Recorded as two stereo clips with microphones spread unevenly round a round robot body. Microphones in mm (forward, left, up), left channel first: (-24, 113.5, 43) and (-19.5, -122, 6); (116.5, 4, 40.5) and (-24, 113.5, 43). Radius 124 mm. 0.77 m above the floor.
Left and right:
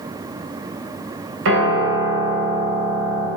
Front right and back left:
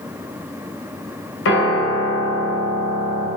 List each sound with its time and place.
1.4 s a piano: 50° right, 2.5 m